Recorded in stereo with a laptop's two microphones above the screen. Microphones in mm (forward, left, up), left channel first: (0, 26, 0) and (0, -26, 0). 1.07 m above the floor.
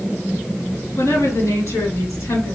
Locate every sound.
1.0 s a woman speaking: 85° left, 2.5 m